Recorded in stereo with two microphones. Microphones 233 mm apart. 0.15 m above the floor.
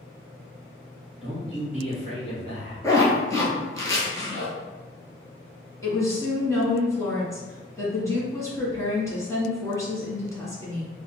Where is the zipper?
15° left (ahead or behind), 1.0 m.